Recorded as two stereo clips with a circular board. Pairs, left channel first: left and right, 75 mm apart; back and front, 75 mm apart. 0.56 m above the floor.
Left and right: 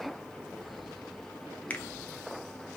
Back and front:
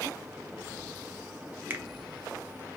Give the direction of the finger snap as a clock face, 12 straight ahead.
11 o'clock.